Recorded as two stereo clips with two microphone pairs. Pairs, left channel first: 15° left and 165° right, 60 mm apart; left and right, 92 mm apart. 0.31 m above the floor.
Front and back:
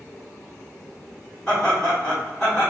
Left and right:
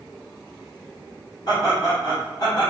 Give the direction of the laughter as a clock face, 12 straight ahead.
9 o'clock.